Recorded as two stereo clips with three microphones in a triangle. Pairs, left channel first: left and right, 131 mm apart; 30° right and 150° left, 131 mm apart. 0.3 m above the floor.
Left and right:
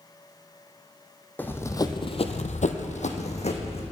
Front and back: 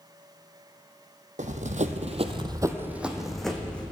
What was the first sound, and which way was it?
Running footsteps, 165° left.